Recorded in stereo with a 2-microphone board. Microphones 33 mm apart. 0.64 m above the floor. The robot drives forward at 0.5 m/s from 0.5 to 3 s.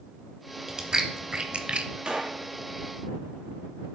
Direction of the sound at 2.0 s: 30° right (ahead or behind).